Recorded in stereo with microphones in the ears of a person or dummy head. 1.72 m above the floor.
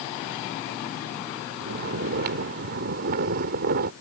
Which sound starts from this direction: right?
Snoring, at 1.6 s.